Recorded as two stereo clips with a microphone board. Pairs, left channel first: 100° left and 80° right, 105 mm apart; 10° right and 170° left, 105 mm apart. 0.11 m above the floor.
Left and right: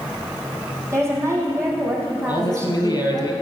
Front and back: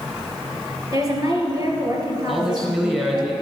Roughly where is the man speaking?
Left.